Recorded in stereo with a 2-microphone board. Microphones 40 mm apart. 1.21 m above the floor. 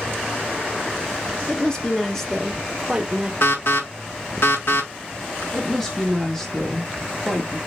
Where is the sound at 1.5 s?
20° left (ahead or behind), 1.8 m; by 3.3 s 25° right (ahead or behind), 1.1 m.